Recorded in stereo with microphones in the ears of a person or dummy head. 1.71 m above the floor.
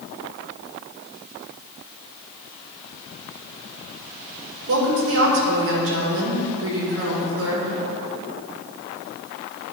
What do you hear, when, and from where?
4.7 s a woman speaking: 70° right (ahead or behind), 1.8 m